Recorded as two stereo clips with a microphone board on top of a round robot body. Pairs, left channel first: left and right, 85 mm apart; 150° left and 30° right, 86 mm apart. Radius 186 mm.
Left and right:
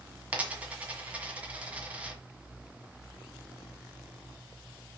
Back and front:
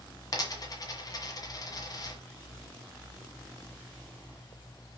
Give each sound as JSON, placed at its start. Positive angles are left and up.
{"t": 0.3, "sound": "a dropped coin", "azimuth_deg": -165, "distance_m": 1.7}